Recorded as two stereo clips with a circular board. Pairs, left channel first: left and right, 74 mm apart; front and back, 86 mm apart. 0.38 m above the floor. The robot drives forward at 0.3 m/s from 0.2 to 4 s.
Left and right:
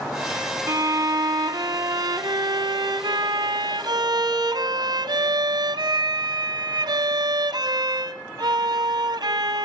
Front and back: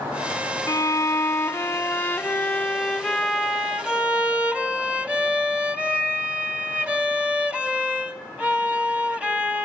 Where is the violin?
50° right, 1.2 m; by 9.7 s 105° right, 1.0 m.